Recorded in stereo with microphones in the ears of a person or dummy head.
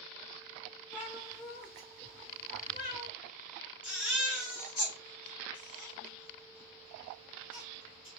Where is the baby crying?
Centre (ahead or behind), 2.5 m.